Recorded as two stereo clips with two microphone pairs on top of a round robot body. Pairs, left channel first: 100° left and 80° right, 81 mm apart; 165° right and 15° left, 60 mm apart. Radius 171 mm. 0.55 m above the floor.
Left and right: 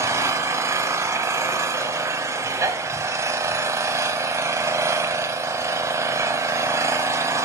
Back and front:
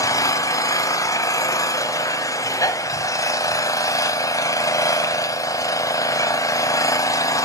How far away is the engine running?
About 0.9 m.